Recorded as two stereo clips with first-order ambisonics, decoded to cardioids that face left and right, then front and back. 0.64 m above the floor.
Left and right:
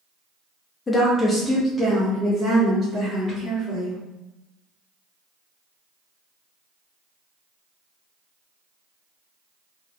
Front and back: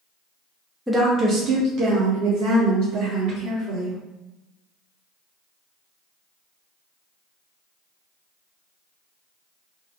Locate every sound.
0.9 s a woman speaking: 100° left, 0.5 m; by 4.0 s 175° right, 1.8 m